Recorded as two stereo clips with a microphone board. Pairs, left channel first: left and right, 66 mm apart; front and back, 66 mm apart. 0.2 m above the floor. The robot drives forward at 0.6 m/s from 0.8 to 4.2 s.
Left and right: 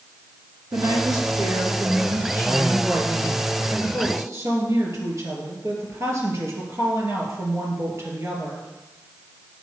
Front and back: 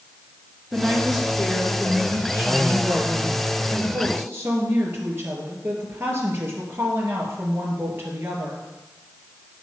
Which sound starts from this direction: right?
A woman speaking, at 0.7 s.